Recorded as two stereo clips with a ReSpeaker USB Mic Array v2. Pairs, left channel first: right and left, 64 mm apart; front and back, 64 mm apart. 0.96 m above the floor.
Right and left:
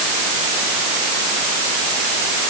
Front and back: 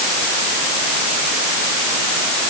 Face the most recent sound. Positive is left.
No sound to turn to.